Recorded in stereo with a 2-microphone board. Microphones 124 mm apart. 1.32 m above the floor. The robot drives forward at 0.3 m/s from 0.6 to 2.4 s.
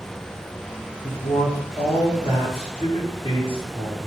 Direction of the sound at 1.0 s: 50° left (ahead or behind).